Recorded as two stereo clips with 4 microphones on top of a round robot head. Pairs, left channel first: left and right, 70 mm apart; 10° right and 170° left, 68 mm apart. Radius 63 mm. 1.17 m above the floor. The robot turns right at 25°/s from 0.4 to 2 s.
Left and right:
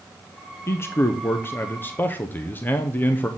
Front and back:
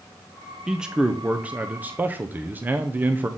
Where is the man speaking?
95° left, 0.7 m; by 3.3 s 130° left, 0.7 m.